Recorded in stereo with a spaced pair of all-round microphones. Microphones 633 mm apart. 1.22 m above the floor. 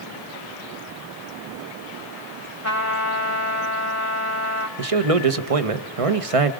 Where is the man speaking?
60° right (ahead or behind), 1.0 m.